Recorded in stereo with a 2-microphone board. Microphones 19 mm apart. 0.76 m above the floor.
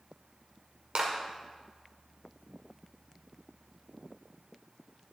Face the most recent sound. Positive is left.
turn(degrees=-80)